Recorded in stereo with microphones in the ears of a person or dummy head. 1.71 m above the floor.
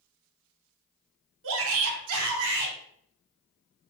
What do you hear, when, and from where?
1.4 s a shout: 70° right (ahead or behind), 1.0 m; by 2.8 s 55° right (ahead or behind), 1.0 m